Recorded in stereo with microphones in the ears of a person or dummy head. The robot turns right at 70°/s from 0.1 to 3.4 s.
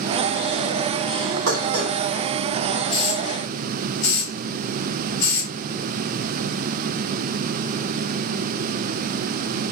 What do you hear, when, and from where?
1.5 s dishes clattering: 75° right (ahead or behind), 5 m; by 1.9 s 40° right (ahead or behind), 5 m
2.9 s a hiss: 30° left (ahead or behind), 5.5 m; by 5.5 s 65° left (ahead or behind), 5.5 m